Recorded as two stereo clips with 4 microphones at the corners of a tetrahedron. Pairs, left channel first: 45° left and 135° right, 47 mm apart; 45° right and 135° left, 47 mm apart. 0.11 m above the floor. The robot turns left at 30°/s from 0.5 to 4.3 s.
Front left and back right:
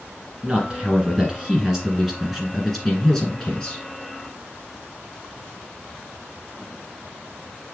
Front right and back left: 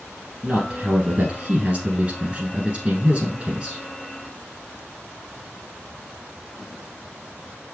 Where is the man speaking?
170° right, 1.7 m; by 3.8 s 90° left, 1.7 m.